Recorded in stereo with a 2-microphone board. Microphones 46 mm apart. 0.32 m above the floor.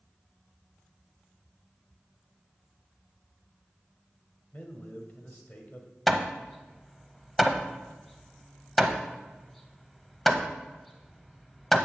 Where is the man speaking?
40° left (ahead or behind), 1.2 m.